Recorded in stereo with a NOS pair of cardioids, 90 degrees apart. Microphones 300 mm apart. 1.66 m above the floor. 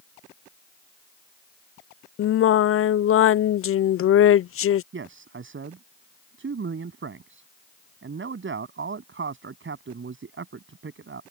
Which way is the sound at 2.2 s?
45° left.